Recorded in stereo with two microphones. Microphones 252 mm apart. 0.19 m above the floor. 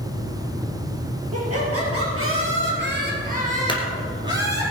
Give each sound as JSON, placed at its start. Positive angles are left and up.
{"t": 1.3, "sound": "laughter", "side_deg": -70, "distance_m": 4.5}
{"t": 3.7, "sound": "a clunk", "side_deg": 20, "distance_m": 2.0}